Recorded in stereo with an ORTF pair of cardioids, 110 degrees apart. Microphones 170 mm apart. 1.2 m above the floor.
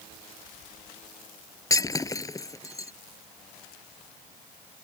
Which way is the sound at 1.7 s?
20° left.